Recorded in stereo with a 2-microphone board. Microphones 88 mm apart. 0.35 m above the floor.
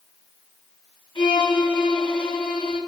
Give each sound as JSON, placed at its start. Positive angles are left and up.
{"t": 1.1, "sound": "a violin", "side_deg": 65, "distance_m": 5.0}